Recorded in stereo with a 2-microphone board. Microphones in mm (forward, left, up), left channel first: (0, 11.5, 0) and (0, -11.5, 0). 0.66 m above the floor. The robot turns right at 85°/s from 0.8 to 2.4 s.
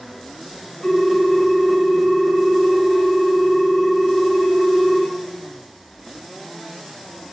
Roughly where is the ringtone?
Behind.